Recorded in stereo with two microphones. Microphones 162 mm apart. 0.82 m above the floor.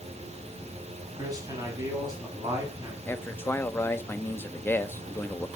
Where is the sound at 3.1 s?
15° left (ahead or behind), 1.1 m.